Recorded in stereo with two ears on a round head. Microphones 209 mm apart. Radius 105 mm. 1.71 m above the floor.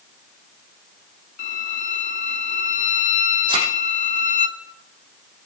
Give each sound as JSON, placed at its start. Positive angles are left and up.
{"t": 1.4, "sound": "a violin", "side_deg": 35, "distance_m": 1.6}
{"t": 3.5, "sound": "a thud", "side_deg": -20, "distance_m": 6.5}